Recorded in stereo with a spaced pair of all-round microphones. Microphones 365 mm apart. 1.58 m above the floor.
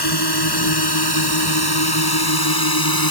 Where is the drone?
90° left; by 3.1 s 65° left (ahead or behind).